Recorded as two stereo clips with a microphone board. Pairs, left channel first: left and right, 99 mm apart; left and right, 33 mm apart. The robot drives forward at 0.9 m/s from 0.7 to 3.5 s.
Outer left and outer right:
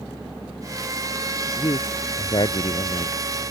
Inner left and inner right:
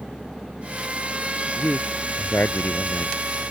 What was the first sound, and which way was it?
A man speaking, 55° left (ahead or behind).